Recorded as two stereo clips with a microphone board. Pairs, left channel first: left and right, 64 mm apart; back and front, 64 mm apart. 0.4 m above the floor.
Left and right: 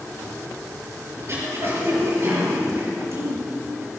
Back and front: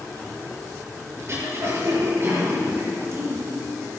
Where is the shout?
No shout in this recording.